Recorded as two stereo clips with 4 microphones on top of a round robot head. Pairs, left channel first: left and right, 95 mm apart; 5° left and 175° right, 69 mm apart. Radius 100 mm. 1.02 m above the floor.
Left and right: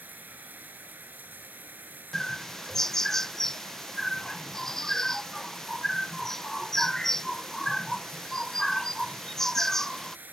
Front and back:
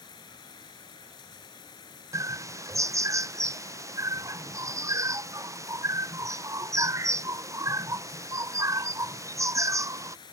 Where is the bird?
175° left.